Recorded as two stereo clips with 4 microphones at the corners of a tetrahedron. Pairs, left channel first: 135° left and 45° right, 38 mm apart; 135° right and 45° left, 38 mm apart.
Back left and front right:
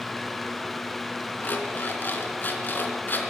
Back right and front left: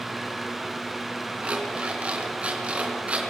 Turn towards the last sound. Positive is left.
turn(degrees=100)